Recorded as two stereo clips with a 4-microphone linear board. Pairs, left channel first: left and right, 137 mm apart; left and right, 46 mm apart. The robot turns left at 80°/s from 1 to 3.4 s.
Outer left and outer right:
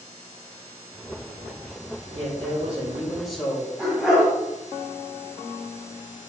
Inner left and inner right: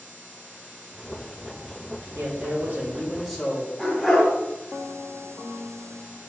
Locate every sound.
2.1 s a man speaking: 85° right, 2 m; by 3.7 s 175° left, 2 m
3.8 s a dog barking: 5° right (ahead or behind), 2.5 m